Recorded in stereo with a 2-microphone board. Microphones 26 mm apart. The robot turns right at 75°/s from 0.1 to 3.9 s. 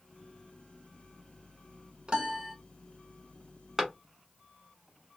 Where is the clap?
20° right (ahead or behind), 1.1 m.